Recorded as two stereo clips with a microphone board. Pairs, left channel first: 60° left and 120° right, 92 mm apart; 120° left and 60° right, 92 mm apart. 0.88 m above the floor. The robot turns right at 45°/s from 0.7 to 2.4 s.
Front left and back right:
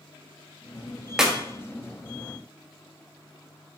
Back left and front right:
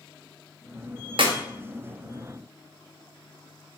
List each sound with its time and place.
1.2 s a clap: 35° right, 0.7 m; by 1.4 s 30° right, 0.7 m